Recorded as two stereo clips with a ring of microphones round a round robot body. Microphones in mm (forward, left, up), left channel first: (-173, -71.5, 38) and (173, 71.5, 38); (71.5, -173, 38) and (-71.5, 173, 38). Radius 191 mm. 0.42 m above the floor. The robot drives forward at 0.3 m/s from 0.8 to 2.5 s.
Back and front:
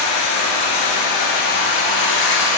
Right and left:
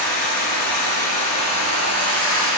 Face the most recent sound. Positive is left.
turn(degrees=-125)